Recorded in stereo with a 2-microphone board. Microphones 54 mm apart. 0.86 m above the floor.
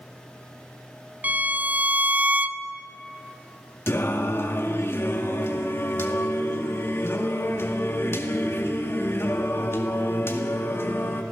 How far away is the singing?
About 1.9 m.